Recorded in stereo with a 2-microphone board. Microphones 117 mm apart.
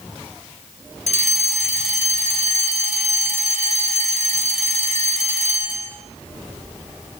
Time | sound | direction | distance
1.1 | a fire alarm | 75° left (ahead or behind) | 6.5 m